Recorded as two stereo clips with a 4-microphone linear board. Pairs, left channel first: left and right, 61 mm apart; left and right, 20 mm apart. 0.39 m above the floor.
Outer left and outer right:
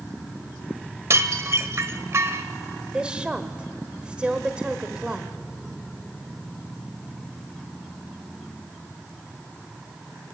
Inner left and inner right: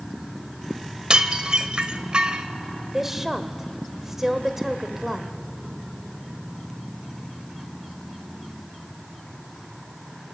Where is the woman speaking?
15° right (ahead or behind), 1.4 m.